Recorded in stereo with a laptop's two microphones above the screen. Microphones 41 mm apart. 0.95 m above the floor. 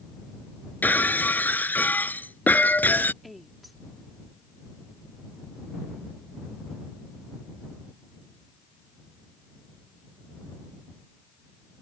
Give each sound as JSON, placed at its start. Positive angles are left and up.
{"t": 0.8, "sound": "breaking glass", "side_deg": 40}
{"t": 3.2, "sound": "a woman speaking", "side_deg": 0}